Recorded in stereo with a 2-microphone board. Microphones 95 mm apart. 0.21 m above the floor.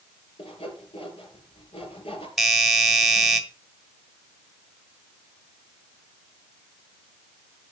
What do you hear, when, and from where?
0.4 s sawing: 75° left (ahead or behind), 5 m
2.4 s a doorbell: centre (ahead or behind), 1.8 m